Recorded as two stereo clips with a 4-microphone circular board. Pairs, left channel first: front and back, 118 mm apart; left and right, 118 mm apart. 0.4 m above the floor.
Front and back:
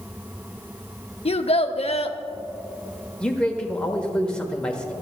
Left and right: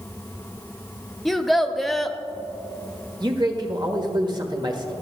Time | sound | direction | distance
1.2 | a child speaking | straight ahead | 0.7 m
3.2 | a man speaking | 80° right | 1.3 m